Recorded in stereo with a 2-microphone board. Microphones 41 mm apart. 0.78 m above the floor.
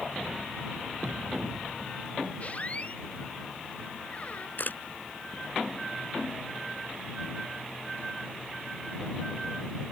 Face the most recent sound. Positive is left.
turn(degrees=50)  # may be behind; listen again after turning